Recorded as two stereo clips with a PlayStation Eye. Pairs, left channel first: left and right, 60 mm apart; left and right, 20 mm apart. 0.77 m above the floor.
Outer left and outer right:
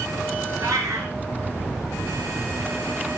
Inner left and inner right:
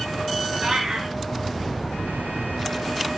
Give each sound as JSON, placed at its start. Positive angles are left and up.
{"t": 0.6, "sound": "a cat meowing", "side_deg": -65, "distance_m": 1.5}